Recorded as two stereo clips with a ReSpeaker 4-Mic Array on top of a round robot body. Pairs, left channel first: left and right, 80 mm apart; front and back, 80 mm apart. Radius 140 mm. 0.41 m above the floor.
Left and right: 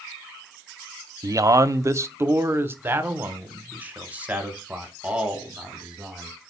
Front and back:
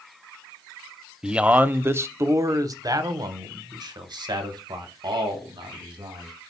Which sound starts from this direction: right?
A man speaking, at 1.2 s.